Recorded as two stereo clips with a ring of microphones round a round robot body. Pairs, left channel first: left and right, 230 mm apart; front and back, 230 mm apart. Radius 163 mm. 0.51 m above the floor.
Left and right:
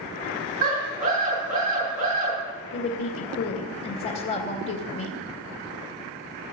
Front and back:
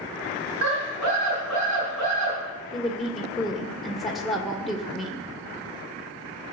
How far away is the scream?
About 6.5 m.